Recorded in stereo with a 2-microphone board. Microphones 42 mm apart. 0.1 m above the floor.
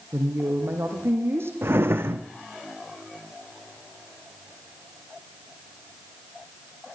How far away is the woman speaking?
About 5.5 m.